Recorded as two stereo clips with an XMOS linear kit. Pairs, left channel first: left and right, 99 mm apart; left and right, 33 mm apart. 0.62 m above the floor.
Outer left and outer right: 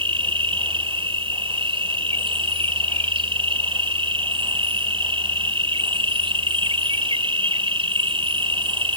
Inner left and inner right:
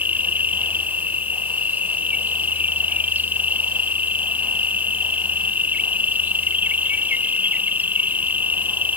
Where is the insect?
65° right (ahead or behind).